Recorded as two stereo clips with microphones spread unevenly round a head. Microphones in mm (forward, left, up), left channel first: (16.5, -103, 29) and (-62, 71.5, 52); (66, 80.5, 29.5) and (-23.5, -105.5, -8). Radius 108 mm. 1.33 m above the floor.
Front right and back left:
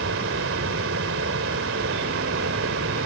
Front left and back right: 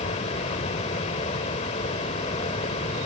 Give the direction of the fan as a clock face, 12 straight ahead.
8 o'clock.